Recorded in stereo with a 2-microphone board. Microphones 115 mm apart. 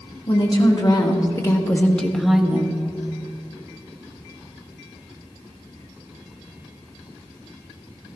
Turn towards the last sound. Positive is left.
turn(degrees=-20)  # may be behind; listen again after turning